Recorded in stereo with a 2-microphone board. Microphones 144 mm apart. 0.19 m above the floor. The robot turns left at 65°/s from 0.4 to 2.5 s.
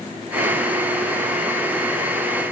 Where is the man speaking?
No man speaking in this recording.